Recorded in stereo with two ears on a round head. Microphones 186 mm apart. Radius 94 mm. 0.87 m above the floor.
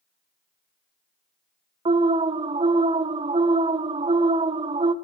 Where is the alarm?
25° right (ahead or behind), 0.9 m.